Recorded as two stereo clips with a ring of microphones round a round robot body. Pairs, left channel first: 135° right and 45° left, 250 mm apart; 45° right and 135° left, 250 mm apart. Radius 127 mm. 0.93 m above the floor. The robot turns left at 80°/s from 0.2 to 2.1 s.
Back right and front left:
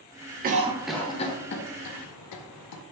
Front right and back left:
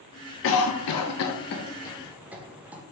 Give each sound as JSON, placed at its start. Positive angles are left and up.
{"t": 0.4, "sound": "a cough", "azimuth_deg": -10, "distance_m": 0.5}